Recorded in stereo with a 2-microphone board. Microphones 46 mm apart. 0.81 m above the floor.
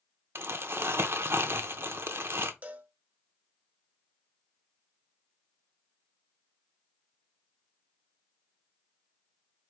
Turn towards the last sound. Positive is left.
turn(degrees=-30)  # may be behind; listen again after turning